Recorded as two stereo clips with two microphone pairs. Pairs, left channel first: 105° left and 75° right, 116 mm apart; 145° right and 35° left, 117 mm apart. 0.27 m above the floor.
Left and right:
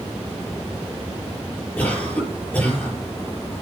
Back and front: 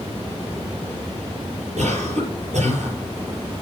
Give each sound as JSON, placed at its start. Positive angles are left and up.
{"t": 1.8, "sound": "a cough", "azimuth_deg": 30, "distance_m": 6.5}